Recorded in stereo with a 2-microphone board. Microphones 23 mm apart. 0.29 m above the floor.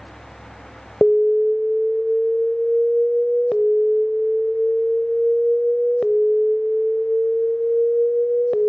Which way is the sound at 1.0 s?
25° left (ahead or behind).